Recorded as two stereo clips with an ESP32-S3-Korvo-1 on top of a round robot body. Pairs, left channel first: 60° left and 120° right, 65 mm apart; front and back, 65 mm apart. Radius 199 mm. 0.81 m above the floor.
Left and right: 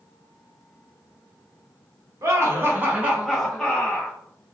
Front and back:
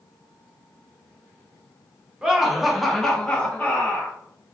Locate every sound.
2.2 s laughter: 105° right, 1.3 m; by 4.2 s 15° left, 1.2 m